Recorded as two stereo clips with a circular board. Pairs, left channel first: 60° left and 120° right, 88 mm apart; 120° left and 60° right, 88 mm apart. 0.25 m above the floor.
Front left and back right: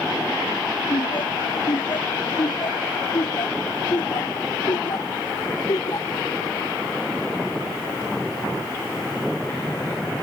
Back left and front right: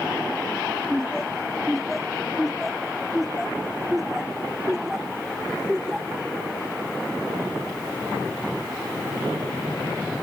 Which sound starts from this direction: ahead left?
Laughter, at 0.9 s.